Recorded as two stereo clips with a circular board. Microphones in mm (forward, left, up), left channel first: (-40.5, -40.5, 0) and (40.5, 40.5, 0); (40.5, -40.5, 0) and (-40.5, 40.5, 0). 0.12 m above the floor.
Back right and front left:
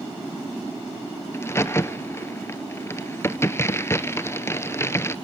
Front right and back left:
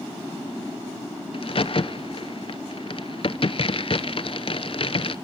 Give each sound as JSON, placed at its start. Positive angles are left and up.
{"t": 1.3, "sound": "a crack", "azimuth_deg": -70, "distance_m": 0.5}